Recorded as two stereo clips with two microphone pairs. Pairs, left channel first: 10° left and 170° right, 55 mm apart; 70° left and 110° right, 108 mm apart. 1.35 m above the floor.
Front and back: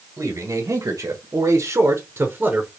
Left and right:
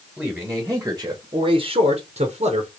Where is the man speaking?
165° left, 1.4 m; by 2.7 s 100° right, 1.2 m.